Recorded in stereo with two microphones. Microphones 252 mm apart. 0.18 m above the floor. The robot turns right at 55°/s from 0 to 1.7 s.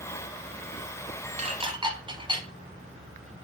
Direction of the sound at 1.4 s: 25° right (ahead or behind).